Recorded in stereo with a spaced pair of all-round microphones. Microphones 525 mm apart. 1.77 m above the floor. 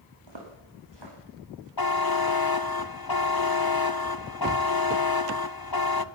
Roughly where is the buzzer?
Left.